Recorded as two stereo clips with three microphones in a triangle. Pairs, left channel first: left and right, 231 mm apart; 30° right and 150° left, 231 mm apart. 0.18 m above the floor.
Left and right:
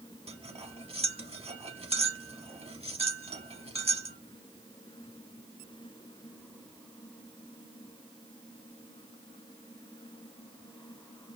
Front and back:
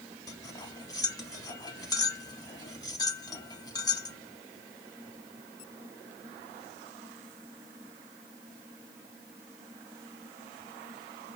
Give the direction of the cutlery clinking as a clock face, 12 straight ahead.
3 o'clock.